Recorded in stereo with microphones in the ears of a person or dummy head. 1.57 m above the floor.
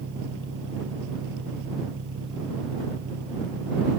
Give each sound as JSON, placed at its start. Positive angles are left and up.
{"t": 0.0, "sound": "an engine running", "side_deg": -65}